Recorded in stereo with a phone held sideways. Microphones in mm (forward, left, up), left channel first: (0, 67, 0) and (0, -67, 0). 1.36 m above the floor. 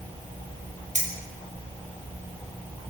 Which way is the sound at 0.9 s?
55° right (ahead or behind).